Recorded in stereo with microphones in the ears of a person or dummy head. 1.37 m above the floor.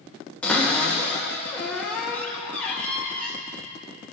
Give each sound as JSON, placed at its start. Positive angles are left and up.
{"t": 0.4, "sound": "a cupboard door", "side_deg": 5, "distance_m": 1.5}